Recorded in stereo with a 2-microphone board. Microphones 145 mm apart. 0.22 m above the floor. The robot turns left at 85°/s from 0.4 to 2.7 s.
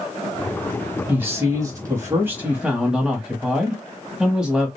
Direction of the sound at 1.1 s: 15° right (ahead or behind).